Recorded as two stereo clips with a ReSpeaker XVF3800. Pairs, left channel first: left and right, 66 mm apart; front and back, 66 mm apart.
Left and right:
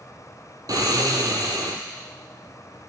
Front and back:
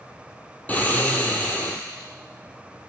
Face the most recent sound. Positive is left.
turn(degrees=-65)